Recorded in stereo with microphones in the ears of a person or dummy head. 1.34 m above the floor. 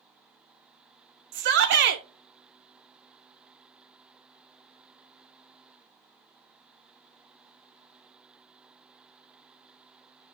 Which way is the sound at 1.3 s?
60° right (ahead or behind).